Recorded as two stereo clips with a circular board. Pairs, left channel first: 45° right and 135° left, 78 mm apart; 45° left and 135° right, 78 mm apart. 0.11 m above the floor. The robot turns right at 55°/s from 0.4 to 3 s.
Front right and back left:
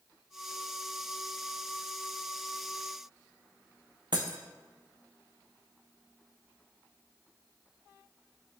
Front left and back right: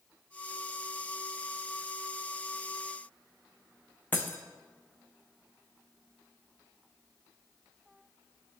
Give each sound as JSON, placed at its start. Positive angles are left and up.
{"t": 4.1, "sound": "breaking glass", "azimuth_deg": 110, "distance_m": 0.8}